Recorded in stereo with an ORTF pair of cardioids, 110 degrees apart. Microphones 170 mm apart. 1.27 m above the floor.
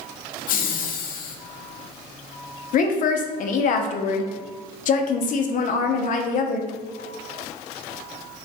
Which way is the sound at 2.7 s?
50° left.